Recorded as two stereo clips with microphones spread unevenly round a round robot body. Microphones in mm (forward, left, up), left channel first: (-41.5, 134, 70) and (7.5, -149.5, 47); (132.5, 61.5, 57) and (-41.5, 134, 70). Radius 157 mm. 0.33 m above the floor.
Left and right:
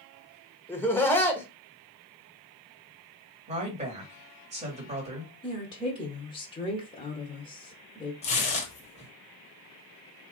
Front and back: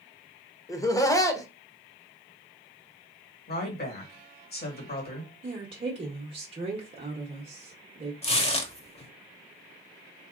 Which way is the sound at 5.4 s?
160° left.